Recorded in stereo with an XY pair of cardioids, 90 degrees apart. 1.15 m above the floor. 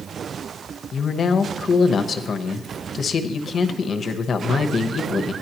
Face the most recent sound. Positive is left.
turn(degrees=55)